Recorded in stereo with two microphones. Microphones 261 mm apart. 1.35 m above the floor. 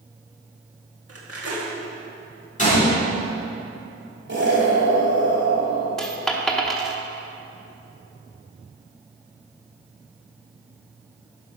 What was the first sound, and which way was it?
Cutlery clinking, 60° right (ahead or behind).